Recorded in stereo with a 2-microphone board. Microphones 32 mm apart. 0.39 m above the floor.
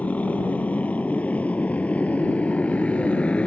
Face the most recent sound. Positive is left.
turn(degrees=45)  # may be behind; listen again after turning